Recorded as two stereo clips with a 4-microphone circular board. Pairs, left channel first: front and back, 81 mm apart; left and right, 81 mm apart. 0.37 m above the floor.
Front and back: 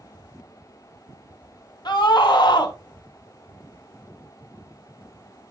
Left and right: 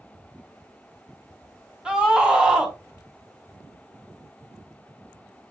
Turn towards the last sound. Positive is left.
turn(degrees=-10)